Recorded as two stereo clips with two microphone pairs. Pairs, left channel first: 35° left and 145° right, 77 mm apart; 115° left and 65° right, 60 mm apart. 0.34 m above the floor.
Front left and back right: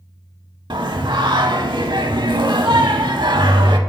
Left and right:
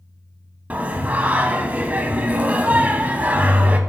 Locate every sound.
0.7 s singing: 130° right, 0.5 m